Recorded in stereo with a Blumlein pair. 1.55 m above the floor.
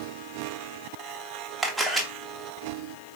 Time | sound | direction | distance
1.6 | a camera shutter | 5° right | 1.0 m